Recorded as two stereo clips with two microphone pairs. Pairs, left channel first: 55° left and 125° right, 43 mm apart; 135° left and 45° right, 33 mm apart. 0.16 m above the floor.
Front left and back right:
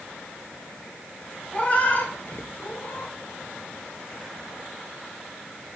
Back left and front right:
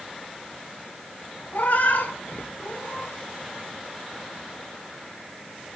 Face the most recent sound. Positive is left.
turn(degrees=95)